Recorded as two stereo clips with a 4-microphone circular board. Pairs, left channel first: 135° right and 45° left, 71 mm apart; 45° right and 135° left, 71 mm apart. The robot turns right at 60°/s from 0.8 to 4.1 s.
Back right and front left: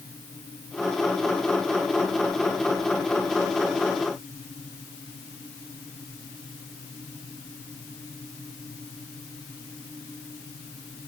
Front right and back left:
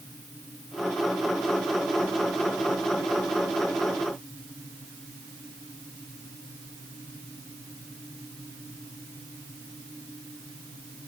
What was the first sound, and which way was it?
Only background noise.